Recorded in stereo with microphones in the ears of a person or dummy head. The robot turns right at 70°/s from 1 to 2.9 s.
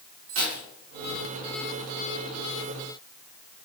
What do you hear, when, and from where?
0.3 s keys jangling: 80° right, 3.5 m